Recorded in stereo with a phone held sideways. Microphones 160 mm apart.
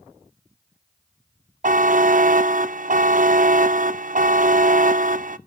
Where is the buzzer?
55° right (ahead or behind), 0.5 m.